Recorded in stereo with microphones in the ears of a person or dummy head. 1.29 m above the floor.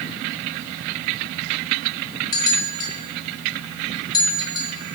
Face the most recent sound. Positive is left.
turn(degrees=25)  # may be behind; listen again after turning